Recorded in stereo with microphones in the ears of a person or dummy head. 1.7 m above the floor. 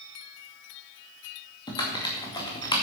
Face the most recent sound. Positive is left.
turn(degrees=35)  # may be behind; listen again after turning